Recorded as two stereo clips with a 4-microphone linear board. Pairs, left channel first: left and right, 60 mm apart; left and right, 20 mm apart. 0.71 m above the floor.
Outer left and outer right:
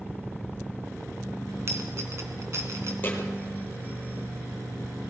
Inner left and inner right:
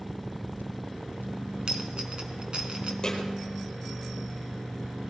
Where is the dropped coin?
50° right (ahead or behind), 3 m.